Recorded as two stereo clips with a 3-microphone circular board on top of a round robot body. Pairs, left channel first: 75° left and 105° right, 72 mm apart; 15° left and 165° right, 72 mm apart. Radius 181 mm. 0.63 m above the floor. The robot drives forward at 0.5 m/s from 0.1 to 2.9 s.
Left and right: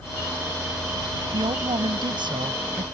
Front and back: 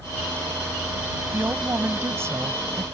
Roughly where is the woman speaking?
Right.